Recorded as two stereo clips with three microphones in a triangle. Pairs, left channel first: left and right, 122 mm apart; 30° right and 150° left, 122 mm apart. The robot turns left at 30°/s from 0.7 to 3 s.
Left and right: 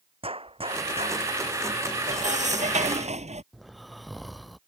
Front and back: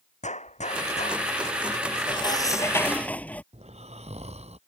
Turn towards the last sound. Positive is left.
turn(degrees=180)